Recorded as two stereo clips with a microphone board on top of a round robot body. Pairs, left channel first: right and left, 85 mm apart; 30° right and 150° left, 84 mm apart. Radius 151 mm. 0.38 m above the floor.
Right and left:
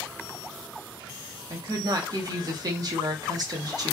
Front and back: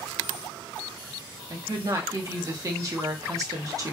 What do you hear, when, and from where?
1.5 s a woman speaking: 115° left, 1.1 m